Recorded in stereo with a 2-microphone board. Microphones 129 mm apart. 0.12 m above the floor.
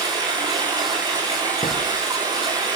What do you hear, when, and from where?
0.0 s running water: 35° right (ahead or behind), 6.5 m
1.6 s a thud: 50° left (ahead or behind), 3.5 m